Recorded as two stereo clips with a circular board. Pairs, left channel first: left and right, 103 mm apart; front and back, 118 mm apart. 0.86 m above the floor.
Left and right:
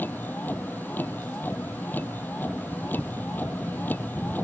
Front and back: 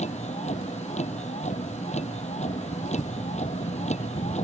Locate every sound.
0.0 s a vehicle: 15° left